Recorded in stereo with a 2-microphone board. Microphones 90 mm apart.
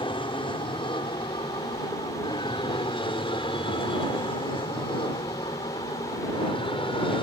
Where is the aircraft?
65° left (ahead or behind); by 7.2 s 70° left (ahead or behind).